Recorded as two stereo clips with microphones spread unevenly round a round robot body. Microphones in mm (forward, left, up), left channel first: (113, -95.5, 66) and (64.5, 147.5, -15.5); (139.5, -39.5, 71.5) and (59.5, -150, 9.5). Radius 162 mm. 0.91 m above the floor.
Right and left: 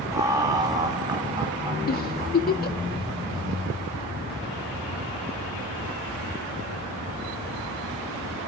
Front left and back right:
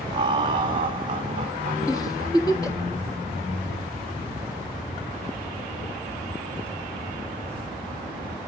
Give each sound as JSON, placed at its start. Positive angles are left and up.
{"t": 0.1, "sound": "laughter", "azimuth_deg": 175, "distance_m": 0.9}
{"t": 1.9, "sound": "a giggle", "azimuth_deg": -20, "distance_m": 1.7}